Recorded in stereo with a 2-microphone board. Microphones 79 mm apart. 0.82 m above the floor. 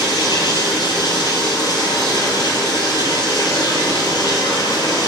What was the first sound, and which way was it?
Running water, 65° left (ahead or behind).